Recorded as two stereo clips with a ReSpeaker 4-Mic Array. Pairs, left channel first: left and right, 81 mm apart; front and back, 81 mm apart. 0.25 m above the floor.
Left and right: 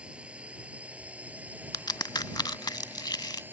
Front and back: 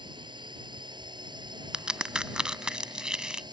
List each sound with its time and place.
0.0 s a drone: 165° right; by 3.5 s 155° right
1.7 s a crack: 100° left